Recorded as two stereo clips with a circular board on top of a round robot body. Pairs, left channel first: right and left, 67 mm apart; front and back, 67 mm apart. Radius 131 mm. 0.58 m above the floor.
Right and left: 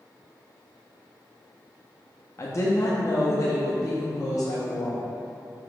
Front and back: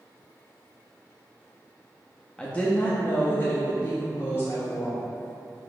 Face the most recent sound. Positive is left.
turn(degrees=-45)